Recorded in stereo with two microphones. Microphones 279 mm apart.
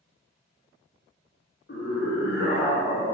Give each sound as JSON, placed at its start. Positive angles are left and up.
{"t": 1.7, "sound": "a scream", "side_deg": 40, "distance_m": 0.8}